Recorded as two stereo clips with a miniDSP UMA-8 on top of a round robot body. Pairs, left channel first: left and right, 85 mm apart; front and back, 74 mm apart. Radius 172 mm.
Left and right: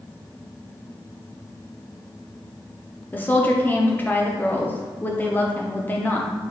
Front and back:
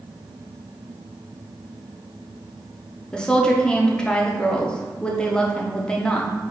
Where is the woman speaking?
65° left, 0.9 m.